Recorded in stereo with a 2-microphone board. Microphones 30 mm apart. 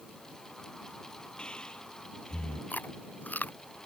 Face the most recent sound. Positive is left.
turn(degrees=65)  # may be behind; listen again after turning